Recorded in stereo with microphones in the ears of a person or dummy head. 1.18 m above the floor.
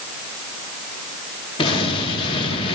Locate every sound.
1.6 s an explosion: 25° left (ahead or behind), 1.4 m